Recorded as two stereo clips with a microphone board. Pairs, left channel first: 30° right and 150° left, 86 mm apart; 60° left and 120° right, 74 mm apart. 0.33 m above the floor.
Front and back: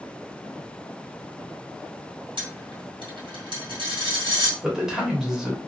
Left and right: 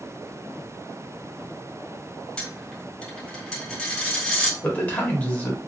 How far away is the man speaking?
About 0.9 m.